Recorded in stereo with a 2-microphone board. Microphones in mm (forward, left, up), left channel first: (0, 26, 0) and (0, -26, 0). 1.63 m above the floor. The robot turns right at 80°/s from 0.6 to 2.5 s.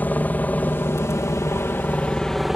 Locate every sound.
0.0 s a helicopter: 35° left (ahead or behind); by 2.5 s 5° right (ahead or behind)